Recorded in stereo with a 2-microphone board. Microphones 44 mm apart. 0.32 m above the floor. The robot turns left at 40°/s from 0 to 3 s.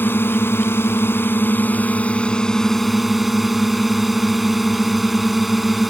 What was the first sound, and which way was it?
A drone, 115° left.